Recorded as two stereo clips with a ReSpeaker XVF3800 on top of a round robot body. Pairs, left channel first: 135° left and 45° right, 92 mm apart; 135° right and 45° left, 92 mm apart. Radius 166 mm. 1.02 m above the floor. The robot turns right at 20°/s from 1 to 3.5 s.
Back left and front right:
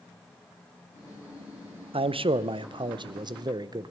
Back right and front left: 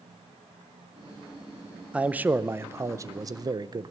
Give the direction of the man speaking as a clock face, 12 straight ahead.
1 o'clock.